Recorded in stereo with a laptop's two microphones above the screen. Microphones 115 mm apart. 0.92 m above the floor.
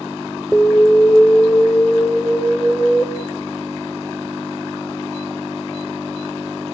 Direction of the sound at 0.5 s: 5° left (ahead or behind).